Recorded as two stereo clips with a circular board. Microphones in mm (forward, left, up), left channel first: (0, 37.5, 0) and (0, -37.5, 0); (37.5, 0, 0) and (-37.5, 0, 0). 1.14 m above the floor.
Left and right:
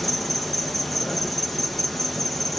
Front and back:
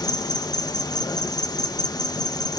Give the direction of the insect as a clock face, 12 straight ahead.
12 o'clock.